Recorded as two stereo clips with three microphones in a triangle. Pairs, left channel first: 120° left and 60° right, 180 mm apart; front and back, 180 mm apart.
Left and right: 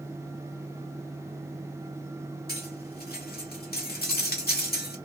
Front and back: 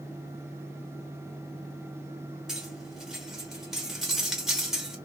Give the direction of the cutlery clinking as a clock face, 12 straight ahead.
9 o'clock.